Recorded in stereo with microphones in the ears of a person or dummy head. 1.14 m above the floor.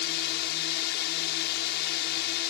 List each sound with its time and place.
0.0 s a drone: 60° left (ahead or behind)